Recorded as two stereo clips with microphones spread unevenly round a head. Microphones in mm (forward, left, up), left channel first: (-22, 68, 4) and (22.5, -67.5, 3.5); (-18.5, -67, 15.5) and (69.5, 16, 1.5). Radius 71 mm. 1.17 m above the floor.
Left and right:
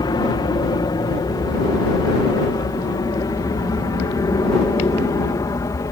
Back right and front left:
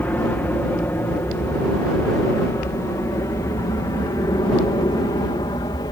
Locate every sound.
0.0 s an aircraft: 150° left; by 5.9 s 170° left